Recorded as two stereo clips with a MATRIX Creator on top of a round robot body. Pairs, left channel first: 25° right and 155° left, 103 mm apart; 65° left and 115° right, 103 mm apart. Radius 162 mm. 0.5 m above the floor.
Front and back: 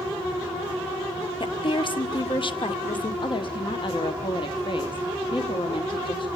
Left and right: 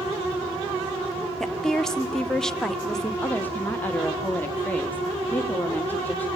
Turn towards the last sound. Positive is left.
turn(degrees=-5)